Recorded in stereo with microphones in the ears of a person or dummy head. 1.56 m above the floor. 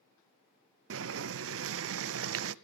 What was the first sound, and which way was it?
Boiling, 65° right (ahead or behind).